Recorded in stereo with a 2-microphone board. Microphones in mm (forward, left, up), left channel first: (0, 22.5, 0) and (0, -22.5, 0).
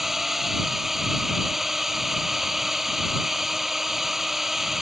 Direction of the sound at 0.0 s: 5° right (ahead or behind).